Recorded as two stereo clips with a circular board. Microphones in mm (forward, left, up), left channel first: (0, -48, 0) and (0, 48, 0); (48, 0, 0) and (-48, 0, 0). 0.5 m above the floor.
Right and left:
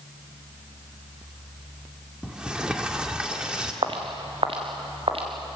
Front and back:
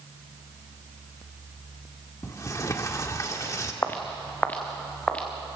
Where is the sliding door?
15° left, 1.5 m.